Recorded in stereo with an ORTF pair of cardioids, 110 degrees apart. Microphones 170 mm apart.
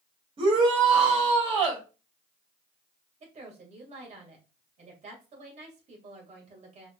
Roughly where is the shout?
Ahead right.